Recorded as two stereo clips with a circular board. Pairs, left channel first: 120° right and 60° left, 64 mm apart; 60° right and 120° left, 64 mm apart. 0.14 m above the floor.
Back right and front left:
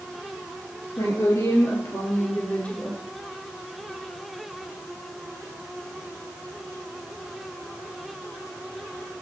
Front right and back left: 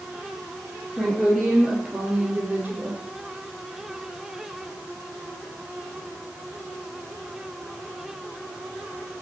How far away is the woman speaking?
About 3.5 m.